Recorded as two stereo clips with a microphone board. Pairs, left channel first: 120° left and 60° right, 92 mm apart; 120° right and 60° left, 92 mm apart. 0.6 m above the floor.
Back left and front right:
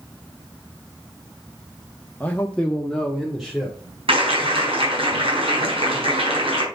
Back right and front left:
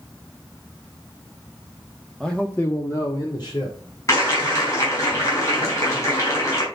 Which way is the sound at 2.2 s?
155° left.